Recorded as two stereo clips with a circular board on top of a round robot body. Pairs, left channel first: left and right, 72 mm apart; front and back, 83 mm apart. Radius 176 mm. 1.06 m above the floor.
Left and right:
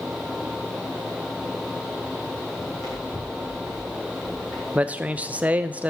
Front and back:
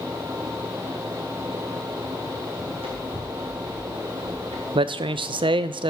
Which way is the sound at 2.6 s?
Straight behind.